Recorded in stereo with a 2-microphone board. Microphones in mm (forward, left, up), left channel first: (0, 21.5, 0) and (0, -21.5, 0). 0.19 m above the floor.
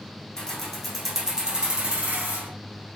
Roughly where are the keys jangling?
Centre.